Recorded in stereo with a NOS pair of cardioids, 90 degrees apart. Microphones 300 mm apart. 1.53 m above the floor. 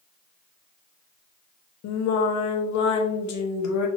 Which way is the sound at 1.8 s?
70° left.